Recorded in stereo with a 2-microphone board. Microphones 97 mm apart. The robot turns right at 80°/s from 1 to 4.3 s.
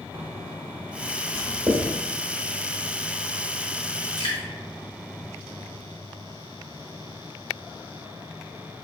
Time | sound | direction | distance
1.3 | writing | 45° right (ahead or behind) | 1.2 m
4.2 | dripping | 50° left (ahead or behind) | 1.6 m